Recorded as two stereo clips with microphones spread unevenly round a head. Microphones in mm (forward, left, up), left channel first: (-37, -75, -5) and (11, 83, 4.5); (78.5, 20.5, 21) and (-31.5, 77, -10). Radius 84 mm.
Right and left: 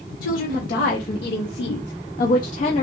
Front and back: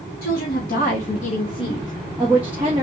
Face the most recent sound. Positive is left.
turn(degrees=-160)